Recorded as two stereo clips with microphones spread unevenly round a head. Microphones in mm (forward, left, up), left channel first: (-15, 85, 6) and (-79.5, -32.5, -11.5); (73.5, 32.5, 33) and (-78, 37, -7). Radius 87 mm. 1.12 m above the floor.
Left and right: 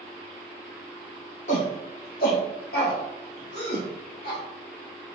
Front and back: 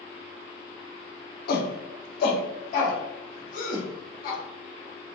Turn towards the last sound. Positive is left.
turn(degrees=35)